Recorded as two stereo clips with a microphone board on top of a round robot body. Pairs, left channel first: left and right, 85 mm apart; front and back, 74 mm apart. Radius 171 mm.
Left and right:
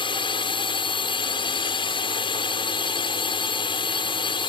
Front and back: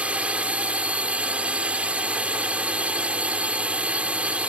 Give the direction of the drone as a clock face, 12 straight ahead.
8 o'clock.